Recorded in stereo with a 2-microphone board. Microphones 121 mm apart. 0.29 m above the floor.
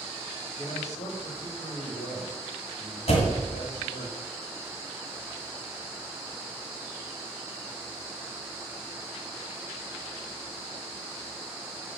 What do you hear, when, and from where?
0.6 s a man speaking: 70° left (ahead or behind), 4 m
3.1 s a door slam: 60° left (ahead or behind), 1.7 m